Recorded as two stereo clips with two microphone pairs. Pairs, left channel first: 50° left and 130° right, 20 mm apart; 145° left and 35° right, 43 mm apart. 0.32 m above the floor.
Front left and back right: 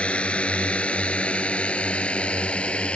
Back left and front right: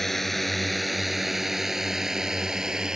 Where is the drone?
60° left; by 3.0 s 40° left.